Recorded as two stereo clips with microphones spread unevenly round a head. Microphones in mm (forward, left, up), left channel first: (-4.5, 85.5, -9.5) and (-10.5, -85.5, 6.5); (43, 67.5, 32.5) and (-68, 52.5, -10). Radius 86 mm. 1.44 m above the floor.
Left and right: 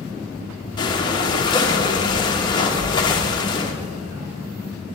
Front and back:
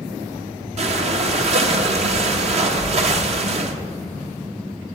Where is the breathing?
155° left, 1.0 m.